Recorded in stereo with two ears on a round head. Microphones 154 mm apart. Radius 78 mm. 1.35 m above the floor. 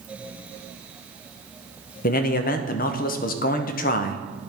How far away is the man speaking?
About 0.6 m.